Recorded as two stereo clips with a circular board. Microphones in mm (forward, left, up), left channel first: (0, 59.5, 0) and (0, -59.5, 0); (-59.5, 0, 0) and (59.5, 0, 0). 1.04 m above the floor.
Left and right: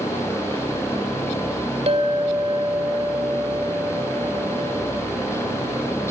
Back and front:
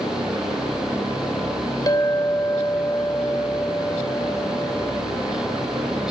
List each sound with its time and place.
1.9 s a clink: 120° right, 2.5 m